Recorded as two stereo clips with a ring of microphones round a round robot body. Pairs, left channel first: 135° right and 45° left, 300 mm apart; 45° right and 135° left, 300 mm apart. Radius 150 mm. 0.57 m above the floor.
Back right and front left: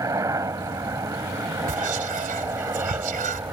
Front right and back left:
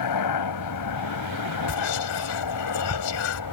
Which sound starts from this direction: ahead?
Whispering, at 1.7 s.